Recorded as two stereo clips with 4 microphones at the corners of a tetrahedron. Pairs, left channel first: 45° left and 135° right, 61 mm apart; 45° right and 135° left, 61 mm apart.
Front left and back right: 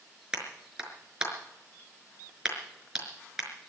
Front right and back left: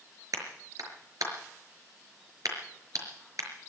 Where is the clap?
150° left, 5 m.